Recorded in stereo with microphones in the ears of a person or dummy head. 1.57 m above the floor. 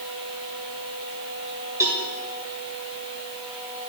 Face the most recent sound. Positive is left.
turn(degrees=-10)  # may be behind; listen again after turning